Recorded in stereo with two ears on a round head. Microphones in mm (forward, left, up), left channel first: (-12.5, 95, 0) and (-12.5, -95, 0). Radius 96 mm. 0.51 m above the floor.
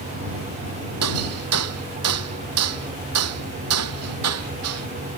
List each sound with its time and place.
1.0 s hammering: 85° right